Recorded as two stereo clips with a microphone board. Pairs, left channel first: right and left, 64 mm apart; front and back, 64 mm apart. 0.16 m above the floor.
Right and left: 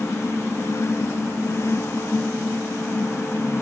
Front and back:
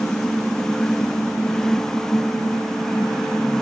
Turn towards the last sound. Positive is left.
No sound to turn to.